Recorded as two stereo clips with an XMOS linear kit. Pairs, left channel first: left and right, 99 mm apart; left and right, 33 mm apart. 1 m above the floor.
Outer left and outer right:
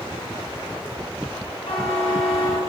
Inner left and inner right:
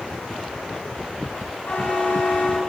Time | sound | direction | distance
1.7 | a buzzer | 85° left | 5.5 m